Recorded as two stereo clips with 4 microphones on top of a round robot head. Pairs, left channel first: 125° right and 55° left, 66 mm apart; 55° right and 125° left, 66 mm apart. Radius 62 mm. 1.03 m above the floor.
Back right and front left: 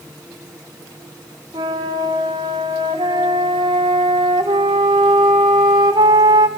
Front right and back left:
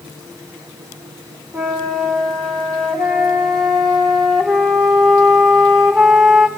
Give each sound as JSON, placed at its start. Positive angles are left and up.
{"t": 1.5, "sound": "a flute", "azimuth_deg": 35, "distance_m": 1.4}